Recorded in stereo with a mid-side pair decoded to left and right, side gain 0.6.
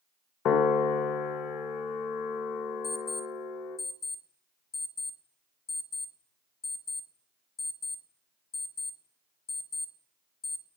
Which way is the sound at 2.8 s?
35° left.